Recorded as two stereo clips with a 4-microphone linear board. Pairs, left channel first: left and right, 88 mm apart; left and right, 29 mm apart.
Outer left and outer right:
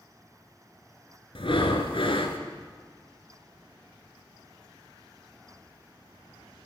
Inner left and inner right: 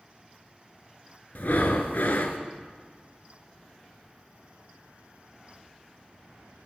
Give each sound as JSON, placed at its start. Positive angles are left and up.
{"t": 1.4, "sound": "breathing", "side_deg": 75, "distance_m": 1.0}